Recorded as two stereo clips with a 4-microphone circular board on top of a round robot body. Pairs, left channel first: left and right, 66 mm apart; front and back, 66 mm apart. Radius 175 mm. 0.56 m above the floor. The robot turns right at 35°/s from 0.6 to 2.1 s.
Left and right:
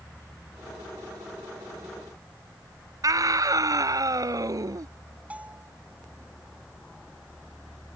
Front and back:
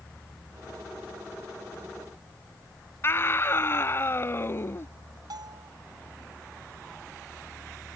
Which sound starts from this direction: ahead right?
A scream, at 3.0 s.